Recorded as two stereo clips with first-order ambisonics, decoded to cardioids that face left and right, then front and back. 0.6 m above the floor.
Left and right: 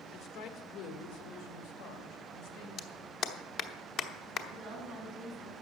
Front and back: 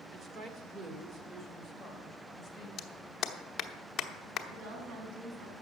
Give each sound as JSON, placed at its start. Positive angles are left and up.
{"t": 0.1, "sound": "a woman speaking", "azimuth_deg": 125, "distance_m": 1.3}
{"t": 2.8, "sound": "a clap", "azimuth_deg": 50, "distance_m": 0.8}
{"t": 4.5, "sound": "a woman speaking", "azimuth_deg": -165, "distance_m": 4.0}